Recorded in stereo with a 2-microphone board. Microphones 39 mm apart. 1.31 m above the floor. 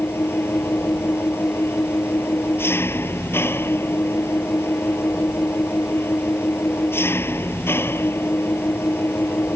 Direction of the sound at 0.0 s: 85° left.